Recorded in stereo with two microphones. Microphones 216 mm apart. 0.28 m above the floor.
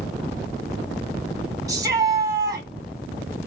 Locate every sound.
1.7 s a shout: 15° right (ahead or behind), 1.7 m